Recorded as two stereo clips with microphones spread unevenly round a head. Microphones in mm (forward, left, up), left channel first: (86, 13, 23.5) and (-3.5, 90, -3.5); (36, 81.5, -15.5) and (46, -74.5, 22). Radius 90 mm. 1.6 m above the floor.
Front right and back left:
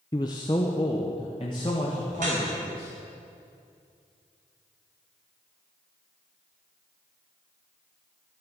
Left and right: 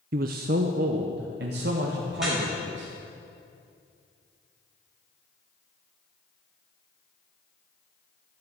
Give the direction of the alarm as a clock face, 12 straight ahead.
No alarm in this recording.